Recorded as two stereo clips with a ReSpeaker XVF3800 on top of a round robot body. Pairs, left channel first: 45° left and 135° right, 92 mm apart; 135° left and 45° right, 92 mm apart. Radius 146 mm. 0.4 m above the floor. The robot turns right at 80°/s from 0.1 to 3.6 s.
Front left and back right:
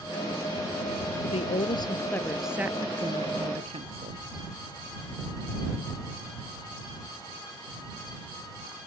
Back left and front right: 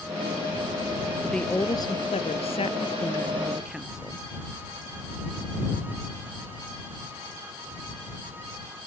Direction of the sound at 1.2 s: 40° left.